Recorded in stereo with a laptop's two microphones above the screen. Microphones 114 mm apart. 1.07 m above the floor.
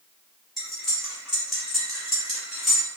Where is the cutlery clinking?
Centre (ahead or behind), 0.9 m.